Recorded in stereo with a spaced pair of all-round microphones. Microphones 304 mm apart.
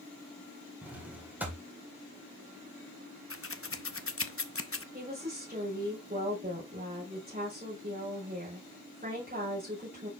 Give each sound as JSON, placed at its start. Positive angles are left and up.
{"t": 0.8, "sound": "a drawer", "side_deg": -5, "distance_m": 2.0}
{"t": 3.3, "sound": "scissors", "side_deg": 45, "distance_m": 0.6}
{"t": 4.9, "sound": "a woman speaking", "side_deg": -30, "distance_m": 5.0}